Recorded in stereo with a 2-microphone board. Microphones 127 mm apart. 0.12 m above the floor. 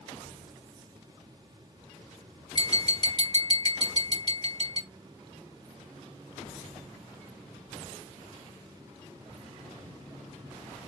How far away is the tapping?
About 1.9 m.